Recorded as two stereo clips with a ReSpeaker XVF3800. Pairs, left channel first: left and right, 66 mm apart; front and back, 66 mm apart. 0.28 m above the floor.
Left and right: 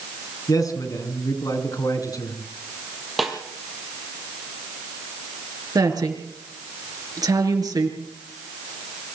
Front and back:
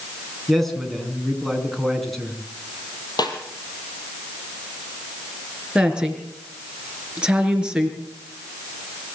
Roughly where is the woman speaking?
Right.